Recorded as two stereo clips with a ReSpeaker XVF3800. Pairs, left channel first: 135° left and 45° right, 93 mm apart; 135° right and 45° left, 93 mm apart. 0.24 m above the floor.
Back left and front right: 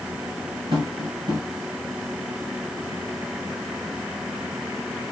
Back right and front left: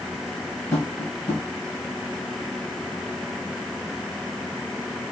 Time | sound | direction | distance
0.7 | tapping | 80° right | 4 m